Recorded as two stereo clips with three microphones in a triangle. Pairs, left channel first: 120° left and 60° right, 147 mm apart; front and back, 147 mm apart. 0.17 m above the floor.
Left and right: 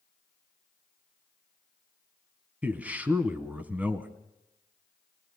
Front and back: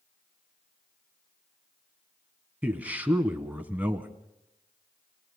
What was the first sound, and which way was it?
A man speaking, 120° right.